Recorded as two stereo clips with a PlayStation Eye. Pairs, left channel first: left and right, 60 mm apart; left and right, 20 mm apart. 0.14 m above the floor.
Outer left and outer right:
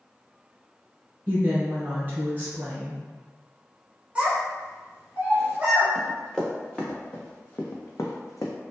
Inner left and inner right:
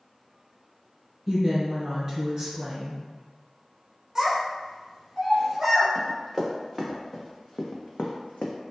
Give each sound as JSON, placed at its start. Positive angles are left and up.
{"t": 1.3, "sound": "a woman speaking", "side_deg": -30, "distance_m": 1.4}
{"t": 4.2, "sound": "a child speaking", "side_deg": -20, "distance_m": 1.0}
{"t": 6.0, "sound": "running footsteps", "side_deg": 0, "distance_m": 1.3}